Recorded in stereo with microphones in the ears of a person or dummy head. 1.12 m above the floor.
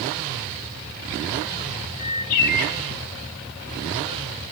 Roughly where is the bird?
Left.